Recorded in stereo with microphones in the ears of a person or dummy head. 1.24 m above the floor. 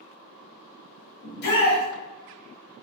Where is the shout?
60° left (ahead or behind), 1.2 m.